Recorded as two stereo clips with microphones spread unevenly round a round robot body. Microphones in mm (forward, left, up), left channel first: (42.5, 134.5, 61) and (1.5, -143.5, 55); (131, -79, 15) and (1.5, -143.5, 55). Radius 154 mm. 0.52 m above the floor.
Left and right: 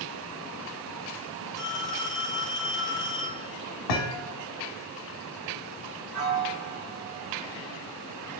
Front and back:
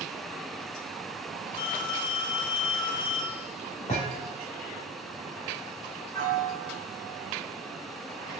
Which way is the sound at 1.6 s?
5° right.